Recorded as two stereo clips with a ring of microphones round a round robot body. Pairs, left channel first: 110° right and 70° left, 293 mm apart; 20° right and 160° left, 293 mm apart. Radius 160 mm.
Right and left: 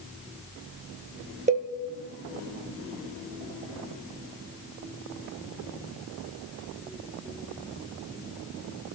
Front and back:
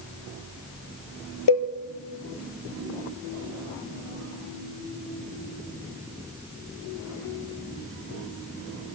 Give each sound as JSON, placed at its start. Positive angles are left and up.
{"t": 1.5, "sound": "a cowbell", "azimuth_deg": 0, "distance_m": 2.0}